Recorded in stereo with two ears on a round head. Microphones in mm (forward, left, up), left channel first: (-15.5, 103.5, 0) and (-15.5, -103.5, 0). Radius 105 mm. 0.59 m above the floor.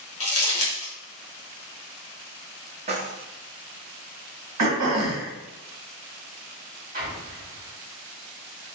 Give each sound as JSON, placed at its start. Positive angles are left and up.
{"t": 0.2, "sound": "crumpling", "side_deg": 25, "distance_m": 1.3}
{"t": 2.9, "sound": "keys jangling", "side_deg": -30, "distance_m": 0.6}
{"t": 4.6, "sound": "throat clearing", "side_deg": -75, "distance_m": 1.1}
{"t": 6.9, "sound": "an explosion", "side_deg": -35, "distance_m": 0.9}